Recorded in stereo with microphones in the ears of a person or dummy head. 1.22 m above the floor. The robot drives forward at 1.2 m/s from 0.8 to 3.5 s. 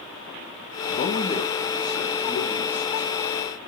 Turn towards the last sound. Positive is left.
turn(degrees=10)  # may be behind; listen again after turning